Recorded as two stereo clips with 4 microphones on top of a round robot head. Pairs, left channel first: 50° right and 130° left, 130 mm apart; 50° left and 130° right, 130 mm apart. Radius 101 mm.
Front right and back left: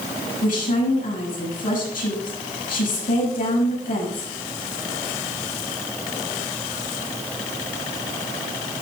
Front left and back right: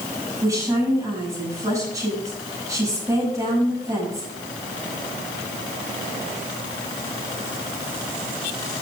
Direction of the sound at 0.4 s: 65° right.